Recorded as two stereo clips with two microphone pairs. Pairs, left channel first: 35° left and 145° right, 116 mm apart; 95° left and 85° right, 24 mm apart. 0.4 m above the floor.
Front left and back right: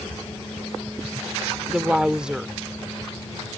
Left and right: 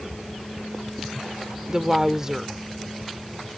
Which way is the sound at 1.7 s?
75° right.